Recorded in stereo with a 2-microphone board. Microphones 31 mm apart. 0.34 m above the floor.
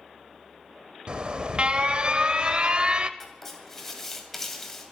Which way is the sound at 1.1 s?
35° right (ahead or behind).